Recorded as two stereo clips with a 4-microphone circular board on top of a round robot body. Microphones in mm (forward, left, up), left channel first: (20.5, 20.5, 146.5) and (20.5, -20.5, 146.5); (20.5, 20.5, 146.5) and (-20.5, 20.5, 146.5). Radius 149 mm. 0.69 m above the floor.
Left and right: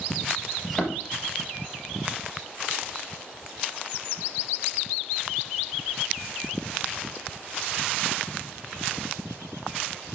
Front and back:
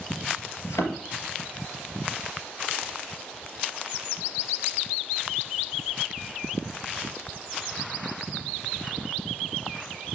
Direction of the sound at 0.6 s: 5° left.